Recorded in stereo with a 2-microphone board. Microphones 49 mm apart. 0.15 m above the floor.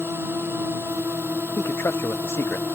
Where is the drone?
60° right (ahead or behind).